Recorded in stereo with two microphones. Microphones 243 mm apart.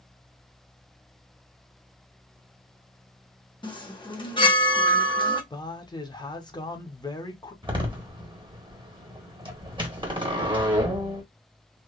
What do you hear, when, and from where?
3.6 s a chime: 20° left (ahead or behind), 0.8 m
5.5 s a man speaking: 15° left (ahead or behind), 0.7 m
7.6 s a door slam: 20° right (ahead or behind), 0.9 m